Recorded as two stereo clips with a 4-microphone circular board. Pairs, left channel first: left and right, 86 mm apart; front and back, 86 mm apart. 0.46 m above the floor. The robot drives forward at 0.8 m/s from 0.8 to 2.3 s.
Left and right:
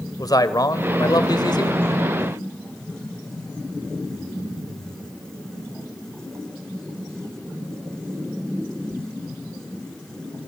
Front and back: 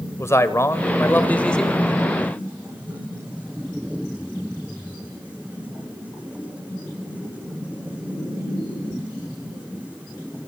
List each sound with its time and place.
0.2 s a man speaking: 55° left, 1.7 m; by 1.9 s 90° left, 1.4 m